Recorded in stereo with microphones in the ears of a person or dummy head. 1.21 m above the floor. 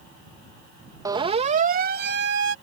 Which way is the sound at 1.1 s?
15° right (ahead or behind).